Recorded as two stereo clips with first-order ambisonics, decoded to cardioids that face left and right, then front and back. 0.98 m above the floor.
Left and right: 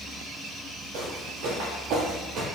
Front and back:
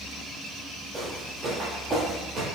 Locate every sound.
0.9 s footsteps: 100° right, 1.7 m; by 2.5 s 130° right, 1.4 m